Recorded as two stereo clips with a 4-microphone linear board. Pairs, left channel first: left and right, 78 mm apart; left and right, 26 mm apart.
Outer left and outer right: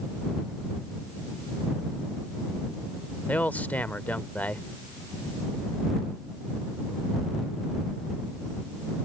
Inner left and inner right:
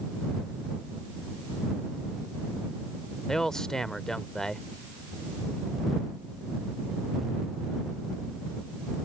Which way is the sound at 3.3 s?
20° left (ahead or behind).